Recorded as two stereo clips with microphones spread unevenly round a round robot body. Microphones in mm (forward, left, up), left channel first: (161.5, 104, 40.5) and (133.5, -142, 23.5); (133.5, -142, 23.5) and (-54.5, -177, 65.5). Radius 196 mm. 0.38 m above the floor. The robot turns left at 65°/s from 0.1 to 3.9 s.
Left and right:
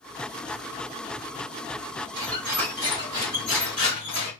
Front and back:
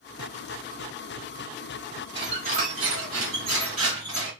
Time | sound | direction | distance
2.1 | a squeak | 135° right | 1.7 m